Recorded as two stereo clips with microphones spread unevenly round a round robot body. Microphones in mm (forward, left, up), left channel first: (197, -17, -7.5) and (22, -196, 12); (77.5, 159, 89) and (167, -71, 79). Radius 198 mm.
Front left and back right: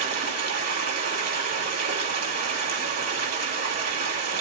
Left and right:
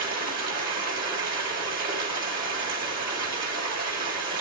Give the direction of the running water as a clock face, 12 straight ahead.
4 o'clock.